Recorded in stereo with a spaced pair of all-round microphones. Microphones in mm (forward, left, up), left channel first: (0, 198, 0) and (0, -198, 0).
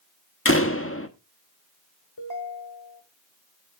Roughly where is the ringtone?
Left.